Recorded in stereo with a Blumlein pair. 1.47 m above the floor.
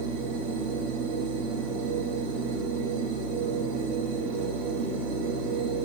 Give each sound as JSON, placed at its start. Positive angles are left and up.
{"t": 0.0, "sound": "a machine running", "azimuth_deg": -35, "distance_m": 3.5}